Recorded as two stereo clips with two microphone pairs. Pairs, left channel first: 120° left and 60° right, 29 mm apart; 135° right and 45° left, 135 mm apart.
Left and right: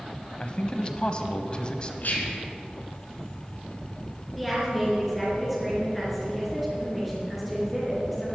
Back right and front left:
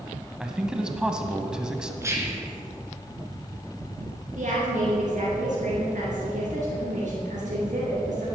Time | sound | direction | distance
0.4 | a man speaking | 120° left | 1.1 m
2.0 | whispering | 110° left | 2.5 m
4.3 | a woman speaking | 35° left | 4 m